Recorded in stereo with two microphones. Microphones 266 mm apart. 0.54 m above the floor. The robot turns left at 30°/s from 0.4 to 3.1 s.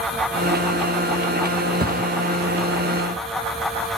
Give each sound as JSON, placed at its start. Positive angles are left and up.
{"t": 1.8, "sound": "a thud", "side_deg": -35, "distance_m": 0.7}